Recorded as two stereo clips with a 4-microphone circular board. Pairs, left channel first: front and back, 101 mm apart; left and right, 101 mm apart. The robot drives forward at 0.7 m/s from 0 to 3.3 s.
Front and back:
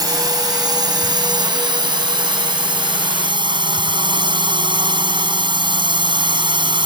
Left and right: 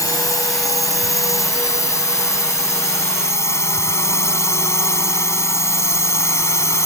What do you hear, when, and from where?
0.0 s a drone: 140° left; by 6.9 s 150° left